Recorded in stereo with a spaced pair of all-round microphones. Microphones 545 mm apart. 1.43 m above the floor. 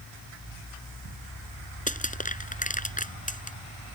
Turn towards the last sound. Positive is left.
turn(degrees=15)  # may be behind; listen again after turning